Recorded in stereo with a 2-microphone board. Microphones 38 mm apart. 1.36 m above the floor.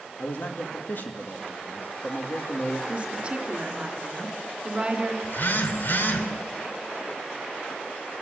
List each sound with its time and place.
0.2 s a man speaking: 55° left (ahead or behind), 2.5 m
2.9 s a woman speaking: 30° right (ahead or behind), 3 m
5.2 s a phone buzzing: 55° left (ahead or behind), 2 m